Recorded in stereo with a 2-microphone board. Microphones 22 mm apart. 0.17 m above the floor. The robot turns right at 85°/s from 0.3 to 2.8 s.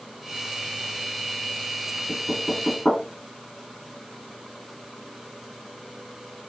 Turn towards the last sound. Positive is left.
turn(degrees=20)  # may be behind; listen again after turning